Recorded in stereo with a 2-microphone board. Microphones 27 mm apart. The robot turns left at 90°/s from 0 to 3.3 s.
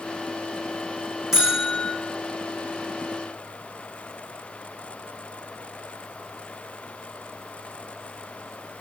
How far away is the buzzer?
About 9.5 m.